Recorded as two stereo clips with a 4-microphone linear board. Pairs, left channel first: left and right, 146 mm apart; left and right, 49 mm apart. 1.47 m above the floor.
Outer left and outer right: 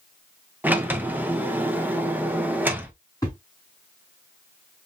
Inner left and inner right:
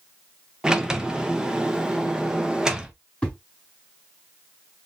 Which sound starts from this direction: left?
A thud, at 3.2 s.